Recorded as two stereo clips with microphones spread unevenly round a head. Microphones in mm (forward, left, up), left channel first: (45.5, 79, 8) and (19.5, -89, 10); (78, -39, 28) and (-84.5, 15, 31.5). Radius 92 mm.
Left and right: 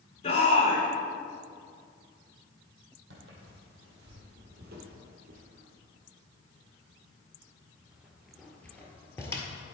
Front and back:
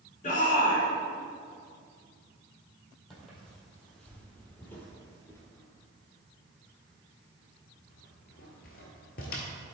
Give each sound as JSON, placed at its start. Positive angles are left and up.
{"t": 0.2, "sound": "a shout", "azimuth_deg": 30, "distance_m": 3.0}
{"t": 3.1, "sound": "footsteps", "azimuth_deg": -110, "distance_m": 2.5}